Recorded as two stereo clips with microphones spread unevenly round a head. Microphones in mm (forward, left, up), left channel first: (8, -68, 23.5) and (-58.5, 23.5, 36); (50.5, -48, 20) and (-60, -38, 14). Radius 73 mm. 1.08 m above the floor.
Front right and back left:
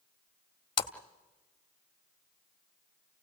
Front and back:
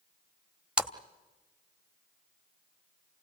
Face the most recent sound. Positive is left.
turn(degrees=-100)